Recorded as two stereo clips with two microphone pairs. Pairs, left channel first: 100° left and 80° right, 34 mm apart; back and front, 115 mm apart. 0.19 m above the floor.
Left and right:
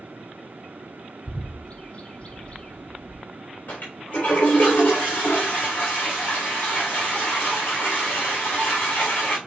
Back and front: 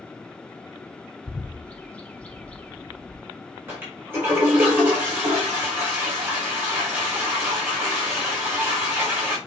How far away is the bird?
About 1.3 m.